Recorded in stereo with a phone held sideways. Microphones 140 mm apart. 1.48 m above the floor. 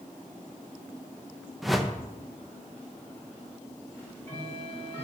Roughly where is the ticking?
Centre.